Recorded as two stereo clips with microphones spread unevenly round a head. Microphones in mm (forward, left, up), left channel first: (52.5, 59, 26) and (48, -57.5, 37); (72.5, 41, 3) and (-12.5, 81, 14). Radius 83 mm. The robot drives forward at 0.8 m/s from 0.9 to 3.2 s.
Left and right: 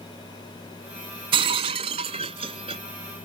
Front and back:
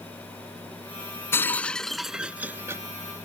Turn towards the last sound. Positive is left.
turn(degrees=-150)